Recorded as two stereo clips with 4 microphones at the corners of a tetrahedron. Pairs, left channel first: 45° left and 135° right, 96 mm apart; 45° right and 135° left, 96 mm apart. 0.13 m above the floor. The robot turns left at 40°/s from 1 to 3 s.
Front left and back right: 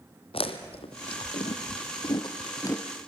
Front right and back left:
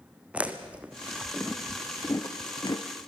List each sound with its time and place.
0.3 s chewing: 60° left, 1.7 m; by 2.9 s 15° right, 1.7 m